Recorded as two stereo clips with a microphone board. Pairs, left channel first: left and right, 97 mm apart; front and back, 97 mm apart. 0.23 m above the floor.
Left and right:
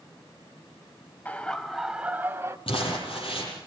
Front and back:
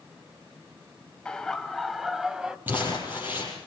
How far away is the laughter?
About 1.0 m.